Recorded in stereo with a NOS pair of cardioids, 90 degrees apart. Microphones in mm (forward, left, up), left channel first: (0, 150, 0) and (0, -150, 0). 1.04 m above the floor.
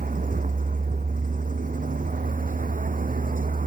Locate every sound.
0.0 s a vehicle: 25° right